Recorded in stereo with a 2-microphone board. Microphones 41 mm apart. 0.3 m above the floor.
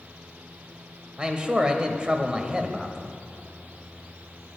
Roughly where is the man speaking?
Right.